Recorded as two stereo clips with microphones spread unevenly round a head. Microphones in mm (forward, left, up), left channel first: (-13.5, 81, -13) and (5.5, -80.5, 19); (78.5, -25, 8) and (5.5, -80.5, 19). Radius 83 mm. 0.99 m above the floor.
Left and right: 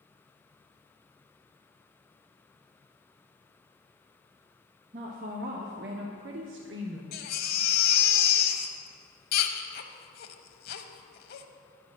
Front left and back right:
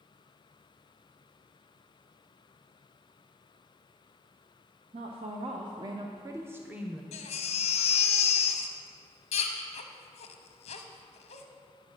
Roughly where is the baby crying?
Ahead left.